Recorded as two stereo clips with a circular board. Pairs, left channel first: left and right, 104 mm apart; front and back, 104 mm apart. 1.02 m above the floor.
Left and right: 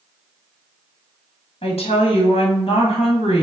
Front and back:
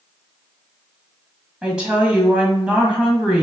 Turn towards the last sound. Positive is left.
turn(degrees=100)